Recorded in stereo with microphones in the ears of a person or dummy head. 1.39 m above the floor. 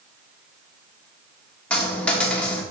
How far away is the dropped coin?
About 1.6 m.